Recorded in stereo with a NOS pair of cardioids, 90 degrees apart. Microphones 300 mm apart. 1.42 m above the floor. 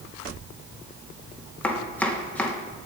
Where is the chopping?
5° left, 1.7 m.